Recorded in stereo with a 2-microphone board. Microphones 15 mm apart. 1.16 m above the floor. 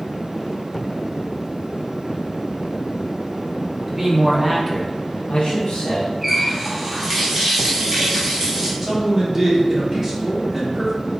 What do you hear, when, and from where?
3.9 s a man speaking: 20° right (ahead or behind), 1.2 m; by 6.1 s 65° left (ahead or behind), 1.2 m
6.2 s a running tap: 10° right (ahead or behind), 1.2 m
8.8 s a man speaking: 15° right (ahead or behind), 1.4 m